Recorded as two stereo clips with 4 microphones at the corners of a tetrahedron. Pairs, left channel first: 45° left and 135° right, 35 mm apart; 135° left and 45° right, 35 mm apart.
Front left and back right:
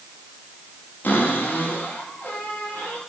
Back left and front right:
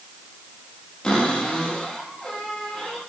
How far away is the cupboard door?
About 6 m.